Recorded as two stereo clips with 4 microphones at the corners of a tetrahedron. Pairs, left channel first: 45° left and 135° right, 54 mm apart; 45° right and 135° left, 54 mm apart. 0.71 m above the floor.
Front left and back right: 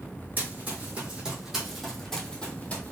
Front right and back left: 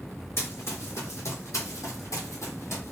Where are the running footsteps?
80° right, 2 m; by 2.9 s 10° right, 1.6 m.